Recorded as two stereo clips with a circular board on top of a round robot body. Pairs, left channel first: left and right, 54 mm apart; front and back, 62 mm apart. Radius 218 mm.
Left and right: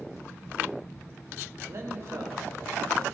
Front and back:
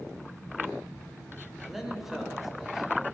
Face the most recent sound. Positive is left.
turn(degrees=-95)